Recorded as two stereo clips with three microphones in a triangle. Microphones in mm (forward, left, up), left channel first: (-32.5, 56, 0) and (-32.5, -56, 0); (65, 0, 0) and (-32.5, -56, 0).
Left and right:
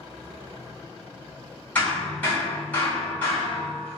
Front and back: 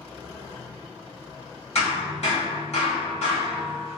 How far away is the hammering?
About 2.0 m.